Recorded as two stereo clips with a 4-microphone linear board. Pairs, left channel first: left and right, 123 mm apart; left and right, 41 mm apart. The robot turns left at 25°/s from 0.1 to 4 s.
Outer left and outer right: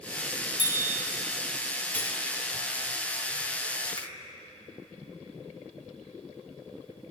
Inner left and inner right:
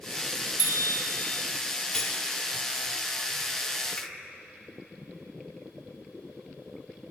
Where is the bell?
75° right (ahead or behind), 1.2 m; by 0.9 s 65° right (ahead or behind), 1.2 m.